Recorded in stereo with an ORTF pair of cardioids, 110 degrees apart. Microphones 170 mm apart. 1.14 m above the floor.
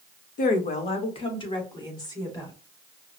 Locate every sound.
0.4 s a woman speaking: 55° left, 0.9 m; by 2.5 s 20° left, 2.5 m